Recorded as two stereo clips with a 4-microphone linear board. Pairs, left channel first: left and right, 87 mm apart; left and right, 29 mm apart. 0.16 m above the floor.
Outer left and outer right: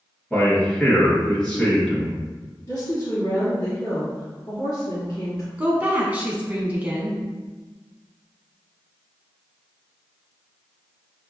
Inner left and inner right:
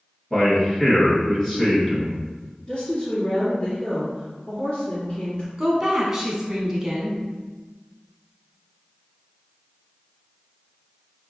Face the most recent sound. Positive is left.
turn(degrees=-20)  # may be behind; listen again after turning